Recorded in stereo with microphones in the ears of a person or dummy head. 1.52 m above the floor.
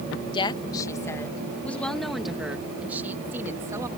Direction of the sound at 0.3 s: 30° left (ahead or behind).